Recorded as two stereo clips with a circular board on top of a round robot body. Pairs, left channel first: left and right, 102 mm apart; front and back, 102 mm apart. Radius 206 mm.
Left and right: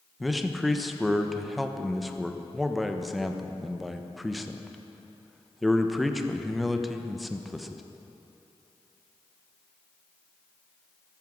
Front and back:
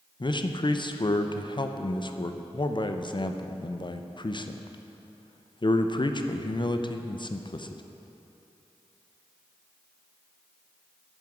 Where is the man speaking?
Straight ahead, 1.1 m.